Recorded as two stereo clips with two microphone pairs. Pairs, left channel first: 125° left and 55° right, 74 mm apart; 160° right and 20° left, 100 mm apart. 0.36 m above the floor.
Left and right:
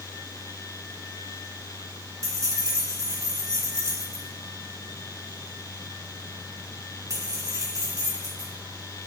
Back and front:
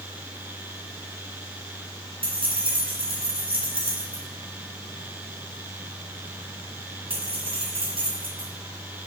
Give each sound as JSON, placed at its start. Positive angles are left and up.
{"t": 2.2, "sound": "keys jangling", "azimuth_deg": -10, "distance_m": 2.5}